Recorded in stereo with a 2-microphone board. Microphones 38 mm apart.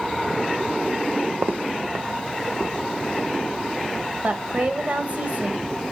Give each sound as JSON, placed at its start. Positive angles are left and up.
{"t": 1.3, "sound": "footsteps", "side_deg": -70, "distance_m": 0.9}
{"t": 4.2, "sound": "a woman speaking", "side_deg": -40, "distance_m": 1.1}